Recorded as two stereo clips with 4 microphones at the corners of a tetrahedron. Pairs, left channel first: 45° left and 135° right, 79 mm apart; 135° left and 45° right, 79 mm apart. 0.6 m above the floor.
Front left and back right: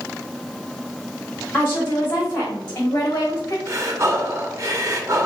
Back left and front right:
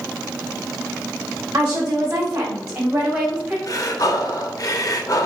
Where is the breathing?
175° left, 0.7 m.